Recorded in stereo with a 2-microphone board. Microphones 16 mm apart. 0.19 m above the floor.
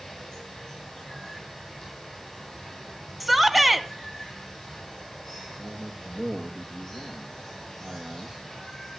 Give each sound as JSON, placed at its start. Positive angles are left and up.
{"t": 0.0, "sound": "running water", "side_deg": 25, "distance_m": 10.0}
{"t": 3.2, "sound": "a shout", "side_deg": -10, "distance_m": 1.4}
{"t": 5.6, "sound": "a man speaking", "side_deg": -55, "distance_m": 7.5}